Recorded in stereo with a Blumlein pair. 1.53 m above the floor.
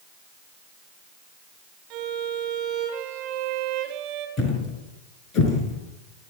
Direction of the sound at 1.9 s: 45° right.